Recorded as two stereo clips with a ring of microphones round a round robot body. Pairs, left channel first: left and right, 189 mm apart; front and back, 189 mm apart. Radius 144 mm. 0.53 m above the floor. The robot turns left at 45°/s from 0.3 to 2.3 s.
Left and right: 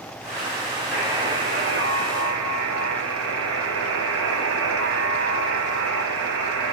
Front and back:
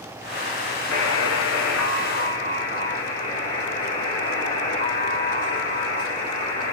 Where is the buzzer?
Straight ahead, 0.7 m; by 6.7 s 60° right, 0.7 m.